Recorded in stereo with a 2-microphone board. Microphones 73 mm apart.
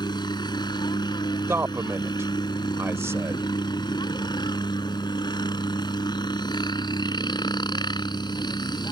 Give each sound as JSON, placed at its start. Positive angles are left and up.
{"t": 0.0, "sound": "a helicopter", "side_deg": 70}
{"t": 1.5, "sound": "a man speaking", "side_deg": -35}